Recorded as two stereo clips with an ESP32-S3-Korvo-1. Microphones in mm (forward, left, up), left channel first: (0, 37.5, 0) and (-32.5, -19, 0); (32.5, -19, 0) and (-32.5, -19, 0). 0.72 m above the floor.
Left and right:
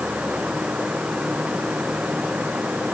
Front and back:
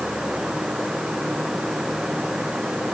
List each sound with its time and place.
Only background noise.